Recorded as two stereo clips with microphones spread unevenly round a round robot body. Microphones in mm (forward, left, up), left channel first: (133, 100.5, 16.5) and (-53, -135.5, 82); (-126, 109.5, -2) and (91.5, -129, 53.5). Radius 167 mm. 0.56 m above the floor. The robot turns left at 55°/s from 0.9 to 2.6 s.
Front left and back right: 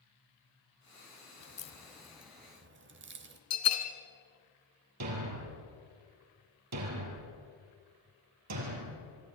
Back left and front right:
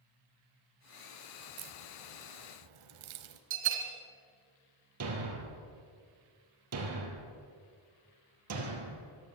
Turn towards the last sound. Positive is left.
turn(degrees=-95)